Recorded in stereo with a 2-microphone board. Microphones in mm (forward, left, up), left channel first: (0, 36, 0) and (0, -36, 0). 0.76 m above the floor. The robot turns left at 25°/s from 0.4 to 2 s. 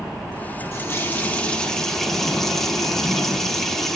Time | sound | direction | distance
0.7 | a running tap | 35° left | 1.2 m